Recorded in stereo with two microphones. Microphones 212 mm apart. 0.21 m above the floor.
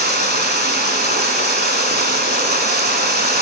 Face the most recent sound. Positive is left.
turn(degrees=-55)  # may be behind; listen again after turning